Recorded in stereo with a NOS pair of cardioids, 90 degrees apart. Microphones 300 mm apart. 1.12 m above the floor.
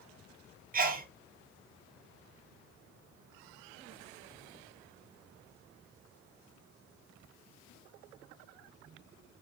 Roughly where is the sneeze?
Ahead right.